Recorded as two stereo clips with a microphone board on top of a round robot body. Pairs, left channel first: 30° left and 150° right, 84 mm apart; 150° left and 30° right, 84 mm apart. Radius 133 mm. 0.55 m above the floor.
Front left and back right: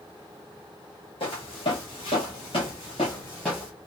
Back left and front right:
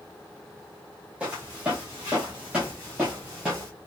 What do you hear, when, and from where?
1.2 s footsteps: 50° left, 1.3 m; by 3.7 s 120° right, 0.5 m